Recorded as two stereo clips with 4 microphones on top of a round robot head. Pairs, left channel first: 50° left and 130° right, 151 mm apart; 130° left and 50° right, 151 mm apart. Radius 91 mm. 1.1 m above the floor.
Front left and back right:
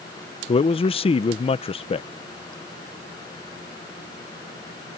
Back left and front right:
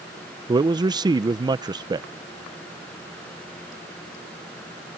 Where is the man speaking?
5° left.